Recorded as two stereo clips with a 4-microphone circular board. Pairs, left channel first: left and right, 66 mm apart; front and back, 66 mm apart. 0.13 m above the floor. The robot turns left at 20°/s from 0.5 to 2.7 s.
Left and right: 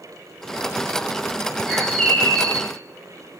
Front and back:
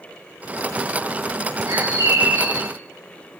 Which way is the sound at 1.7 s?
175° right.